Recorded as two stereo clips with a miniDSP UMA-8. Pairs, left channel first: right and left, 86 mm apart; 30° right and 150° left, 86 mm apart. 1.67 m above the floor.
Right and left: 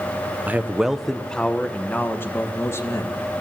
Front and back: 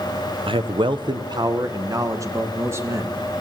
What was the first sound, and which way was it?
A man speaking, 160° left.